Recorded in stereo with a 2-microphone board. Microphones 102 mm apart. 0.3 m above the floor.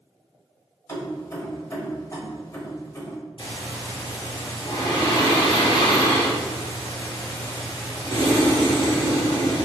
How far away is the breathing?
About 1.5 m.